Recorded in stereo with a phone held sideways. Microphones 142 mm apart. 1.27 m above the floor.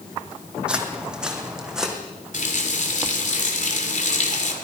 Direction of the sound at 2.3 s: 60° left (ahead or behind).